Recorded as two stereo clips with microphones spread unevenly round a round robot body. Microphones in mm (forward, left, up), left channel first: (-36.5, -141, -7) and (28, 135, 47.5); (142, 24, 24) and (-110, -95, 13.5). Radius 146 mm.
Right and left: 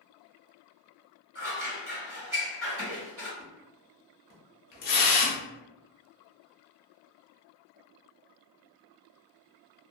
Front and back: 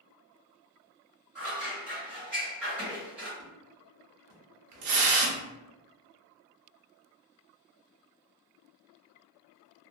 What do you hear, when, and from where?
1.4 s scissors: 120° left, 1.5 m
3.4 s a splash: 160° right, 0.8 m